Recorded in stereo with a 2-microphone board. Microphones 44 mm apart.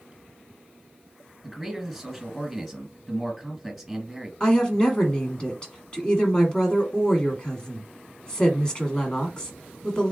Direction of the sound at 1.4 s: Centre (ahead or behind).